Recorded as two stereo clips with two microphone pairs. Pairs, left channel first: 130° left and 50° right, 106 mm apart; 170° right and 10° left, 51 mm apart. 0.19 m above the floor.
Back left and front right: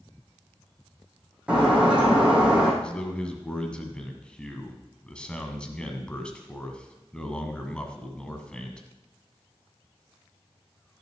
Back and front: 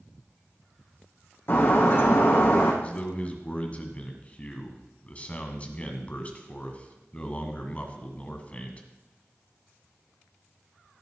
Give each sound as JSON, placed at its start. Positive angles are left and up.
{"t": 1.5, "sound": "breaking glass", "azimuth_deg": -130, "distance_m": 5.5}
{"t": 2.8, "sound": "a man speaking", "azimuth_deg": -160, "distance_m": 1.7}